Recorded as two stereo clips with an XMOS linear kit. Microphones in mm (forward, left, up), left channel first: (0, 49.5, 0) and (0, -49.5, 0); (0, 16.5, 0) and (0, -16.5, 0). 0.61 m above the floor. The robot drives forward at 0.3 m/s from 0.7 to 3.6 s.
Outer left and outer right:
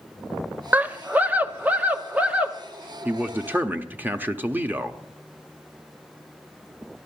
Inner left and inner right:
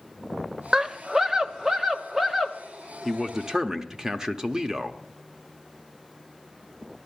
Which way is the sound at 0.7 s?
20° right (ahead or behind).